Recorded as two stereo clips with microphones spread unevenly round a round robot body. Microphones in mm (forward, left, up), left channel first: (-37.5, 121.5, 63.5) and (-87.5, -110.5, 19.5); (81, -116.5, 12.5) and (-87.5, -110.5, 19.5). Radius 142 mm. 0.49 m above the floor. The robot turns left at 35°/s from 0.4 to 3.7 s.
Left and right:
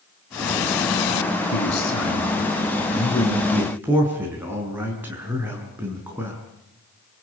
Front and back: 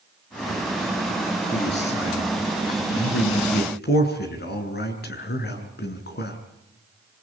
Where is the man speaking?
55° left, 5.5 m; by 6.4 s 20° right, 5.5 m.